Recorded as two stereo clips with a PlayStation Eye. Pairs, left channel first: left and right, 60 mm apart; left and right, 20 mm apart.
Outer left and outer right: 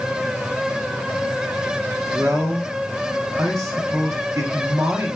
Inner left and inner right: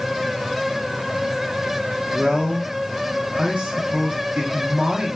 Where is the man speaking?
60° right (ahead or behind), 0.9 m.